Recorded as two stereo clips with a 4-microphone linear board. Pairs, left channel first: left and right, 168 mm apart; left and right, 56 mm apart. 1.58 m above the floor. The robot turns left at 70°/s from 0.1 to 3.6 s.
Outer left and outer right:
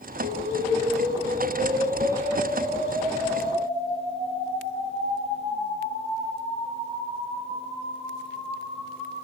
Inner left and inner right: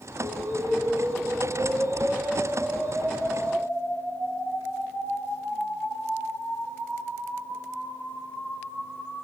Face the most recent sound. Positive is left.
turn(degrees=100)